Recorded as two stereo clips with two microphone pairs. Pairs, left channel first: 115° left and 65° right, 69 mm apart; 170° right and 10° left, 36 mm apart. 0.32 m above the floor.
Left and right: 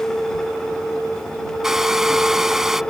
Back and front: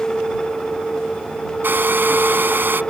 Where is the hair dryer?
15° left.